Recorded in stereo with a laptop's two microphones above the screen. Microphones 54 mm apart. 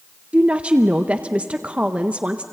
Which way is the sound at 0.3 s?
25° right (ahead or behind).